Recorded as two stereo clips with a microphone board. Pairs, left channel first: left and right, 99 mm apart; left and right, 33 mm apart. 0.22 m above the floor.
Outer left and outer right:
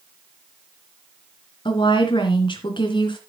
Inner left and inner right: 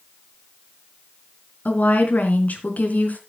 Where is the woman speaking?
60° left (ahead or behind), 3 m.